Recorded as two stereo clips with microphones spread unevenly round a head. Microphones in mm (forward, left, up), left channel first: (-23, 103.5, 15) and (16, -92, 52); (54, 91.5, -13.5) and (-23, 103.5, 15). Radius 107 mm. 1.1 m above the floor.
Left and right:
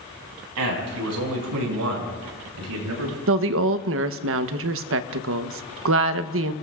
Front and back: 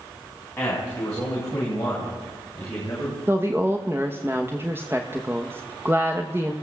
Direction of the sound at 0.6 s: 90° right.